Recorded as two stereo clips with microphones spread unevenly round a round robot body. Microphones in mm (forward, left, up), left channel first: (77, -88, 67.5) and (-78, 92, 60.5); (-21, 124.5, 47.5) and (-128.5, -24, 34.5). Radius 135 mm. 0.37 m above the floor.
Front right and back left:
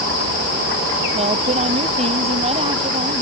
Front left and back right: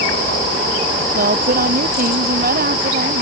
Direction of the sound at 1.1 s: 165° right.